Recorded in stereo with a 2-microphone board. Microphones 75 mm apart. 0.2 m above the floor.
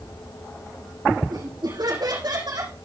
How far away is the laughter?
About 8.5 m.